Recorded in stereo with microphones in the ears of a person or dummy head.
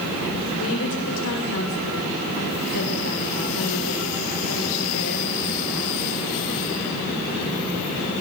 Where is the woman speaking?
75° left (ahead or behind), 6.5 m.